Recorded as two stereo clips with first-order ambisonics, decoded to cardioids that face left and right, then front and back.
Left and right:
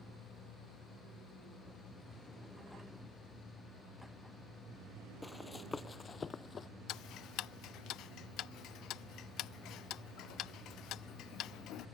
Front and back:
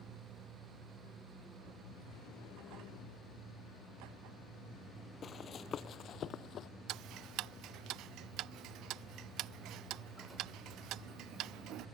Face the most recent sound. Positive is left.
turn(degrees=135)